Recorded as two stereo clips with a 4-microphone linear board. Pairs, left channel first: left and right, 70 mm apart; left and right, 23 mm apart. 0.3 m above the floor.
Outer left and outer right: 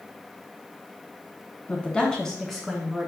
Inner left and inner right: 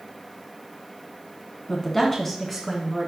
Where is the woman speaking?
25° left (ahead or behind), 2.5 m; by 3.1 s 5° right (ahead or behind), 3 m.